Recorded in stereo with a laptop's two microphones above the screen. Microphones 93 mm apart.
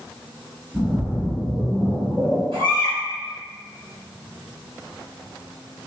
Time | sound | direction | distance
0.7 | a splash | 30° right (ahead or behind) | 1.6 m
2.5 | a baby crying | 75° right (ahead or behind) | 1.9 m